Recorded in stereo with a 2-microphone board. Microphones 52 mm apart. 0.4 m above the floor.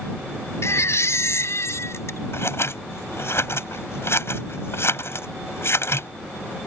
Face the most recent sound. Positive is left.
turn(degrees=55)  # may be behind; listen again after turning